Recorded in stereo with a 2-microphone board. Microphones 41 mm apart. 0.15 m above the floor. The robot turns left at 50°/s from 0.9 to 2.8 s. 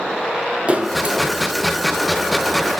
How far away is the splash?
About 1.6 m.